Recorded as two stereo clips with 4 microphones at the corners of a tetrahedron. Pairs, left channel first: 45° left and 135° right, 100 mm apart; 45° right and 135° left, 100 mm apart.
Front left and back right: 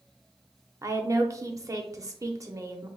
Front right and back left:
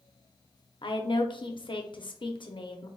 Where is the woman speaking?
80° right, 0.6 m.